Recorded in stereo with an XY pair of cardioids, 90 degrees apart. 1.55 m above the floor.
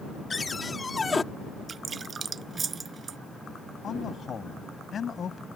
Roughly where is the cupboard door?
Ahead left.